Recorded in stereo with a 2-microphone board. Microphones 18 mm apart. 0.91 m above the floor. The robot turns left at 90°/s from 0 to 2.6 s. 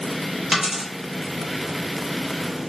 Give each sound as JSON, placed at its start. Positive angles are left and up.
{"t": 0.5, "sound": "a dropped coin", "side_deg": -10, "distance_m": 1.1}